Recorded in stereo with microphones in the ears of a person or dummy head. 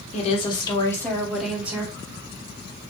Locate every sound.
0.1 s a woman speaking: 35° left (ahead or behind), 1.2 m; by 1.9 s 15° right (ahead or behind), 1.3 m